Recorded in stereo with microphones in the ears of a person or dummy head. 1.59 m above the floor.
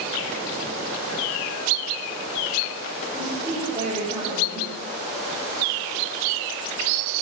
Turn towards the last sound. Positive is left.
turn(degrees=-25)  # may be behind; listen again after turning